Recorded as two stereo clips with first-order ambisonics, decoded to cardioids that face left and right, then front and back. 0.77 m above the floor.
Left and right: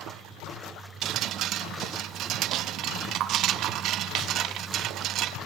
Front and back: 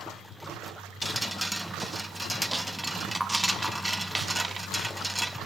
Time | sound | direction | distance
1.0 | dripping | 95° right | 0.5 m